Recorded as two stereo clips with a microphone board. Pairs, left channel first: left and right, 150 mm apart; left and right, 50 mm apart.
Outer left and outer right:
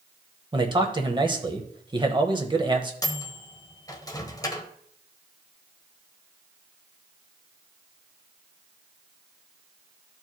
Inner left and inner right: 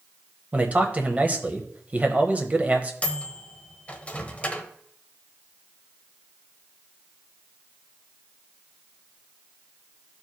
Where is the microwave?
25° left (ahead or behind), 0.9 m.